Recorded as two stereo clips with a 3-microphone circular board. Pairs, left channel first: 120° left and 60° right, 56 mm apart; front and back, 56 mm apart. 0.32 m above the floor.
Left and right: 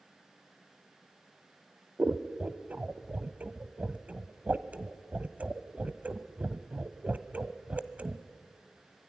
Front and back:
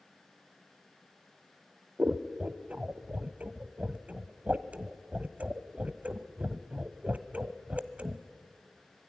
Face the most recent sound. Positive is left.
turn(degrees=-120)